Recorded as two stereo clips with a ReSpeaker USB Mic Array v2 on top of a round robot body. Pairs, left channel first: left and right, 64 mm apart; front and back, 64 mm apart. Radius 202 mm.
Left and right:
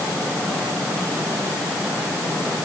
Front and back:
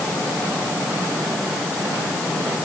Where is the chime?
I don't hear a chime.